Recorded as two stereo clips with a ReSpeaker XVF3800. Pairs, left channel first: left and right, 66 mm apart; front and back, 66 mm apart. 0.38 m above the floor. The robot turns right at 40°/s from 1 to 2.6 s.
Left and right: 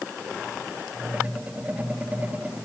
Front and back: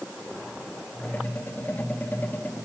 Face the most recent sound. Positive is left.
No sound to turn to.